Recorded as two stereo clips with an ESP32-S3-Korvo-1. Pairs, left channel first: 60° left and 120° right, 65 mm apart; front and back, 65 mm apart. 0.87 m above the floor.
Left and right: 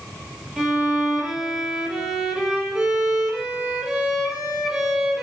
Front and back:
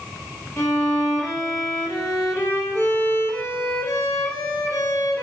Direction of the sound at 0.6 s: 40° right.